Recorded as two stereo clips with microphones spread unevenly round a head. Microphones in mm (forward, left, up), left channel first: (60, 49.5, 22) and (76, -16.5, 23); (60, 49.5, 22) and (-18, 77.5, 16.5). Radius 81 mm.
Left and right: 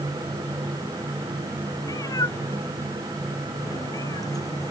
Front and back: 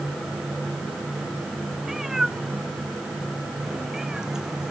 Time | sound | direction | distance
1.8 | a cat meowing | 75° left | ?